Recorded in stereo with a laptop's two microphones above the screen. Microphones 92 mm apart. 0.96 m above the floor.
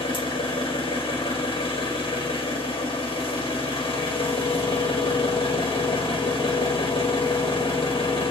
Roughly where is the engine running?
Left.